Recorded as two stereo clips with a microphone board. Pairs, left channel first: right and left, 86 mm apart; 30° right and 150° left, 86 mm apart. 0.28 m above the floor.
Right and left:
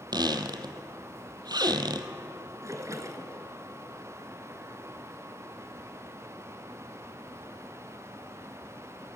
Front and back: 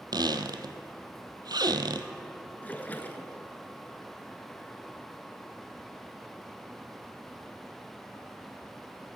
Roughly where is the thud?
No thud in this recording.